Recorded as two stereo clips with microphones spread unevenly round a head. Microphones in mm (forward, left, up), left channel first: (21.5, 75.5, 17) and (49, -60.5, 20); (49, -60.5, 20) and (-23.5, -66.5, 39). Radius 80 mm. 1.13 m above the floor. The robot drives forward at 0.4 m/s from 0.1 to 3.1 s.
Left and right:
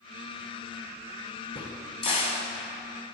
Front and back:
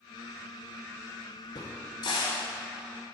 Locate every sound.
1.6 s a crack: 60° left, 1.4 m; by 2.4 s 80° left, 1.3 m